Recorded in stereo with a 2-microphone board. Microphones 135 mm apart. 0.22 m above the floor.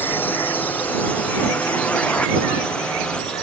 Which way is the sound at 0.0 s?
15° left (ahead or behind).